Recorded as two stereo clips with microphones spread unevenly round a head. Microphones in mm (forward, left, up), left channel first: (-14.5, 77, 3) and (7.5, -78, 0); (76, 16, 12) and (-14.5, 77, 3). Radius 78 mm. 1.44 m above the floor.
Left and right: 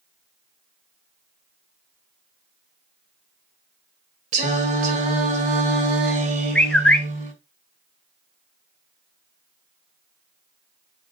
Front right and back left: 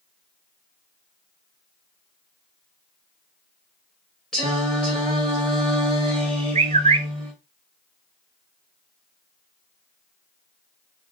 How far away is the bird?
About 0.7 m.